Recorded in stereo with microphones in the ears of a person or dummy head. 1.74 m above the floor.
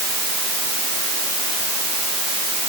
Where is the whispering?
No whispering in this recording.